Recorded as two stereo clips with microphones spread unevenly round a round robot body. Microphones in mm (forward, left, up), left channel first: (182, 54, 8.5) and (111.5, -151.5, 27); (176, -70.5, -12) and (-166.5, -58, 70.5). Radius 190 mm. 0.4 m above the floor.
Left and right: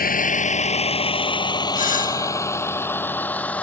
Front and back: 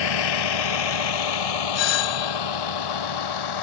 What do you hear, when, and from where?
0.0 s a vehicle: 20° left; by 3.6 s 15° right
1.8 s a doorbell: 25° left